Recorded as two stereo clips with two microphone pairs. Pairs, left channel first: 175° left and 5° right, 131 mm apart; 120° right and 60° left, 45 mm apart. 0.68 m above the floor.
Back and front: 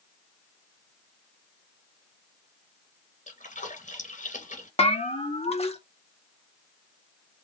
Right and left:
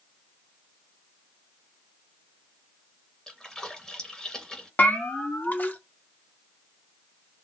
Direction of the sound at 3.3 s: 165° left.